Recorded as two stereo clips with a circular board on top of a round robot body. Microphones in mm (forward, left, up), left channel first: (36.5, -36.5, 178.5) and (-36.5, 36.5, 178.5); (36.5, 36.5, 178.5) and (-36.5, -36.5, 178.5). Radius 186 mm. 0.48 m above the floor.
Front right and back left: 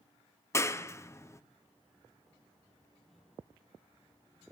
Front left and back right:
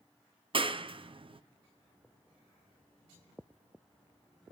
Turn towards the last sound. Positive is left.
turn(degrees=-105)